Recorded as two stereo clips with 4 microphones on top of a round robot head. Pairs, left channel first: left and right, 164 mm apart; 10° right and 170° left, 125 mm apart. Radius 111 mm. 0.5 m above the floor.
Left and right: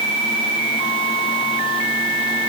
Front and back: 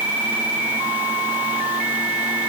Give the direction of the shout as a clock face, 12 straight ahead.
No shout in this recording.